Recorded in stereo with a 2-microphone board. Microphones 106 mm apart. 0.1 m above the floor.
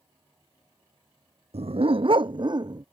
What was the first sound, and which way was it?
A dog barking, 70° right (ahead or behind).